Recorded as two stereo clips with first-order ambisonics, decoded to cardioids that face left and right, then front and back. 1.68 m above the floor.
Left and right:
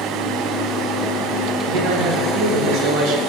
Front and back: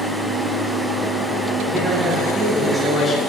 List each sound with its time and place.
1.6 s a man speaking: 105° right, 2.5 m; by 3.2 s 70° right, 1.7 m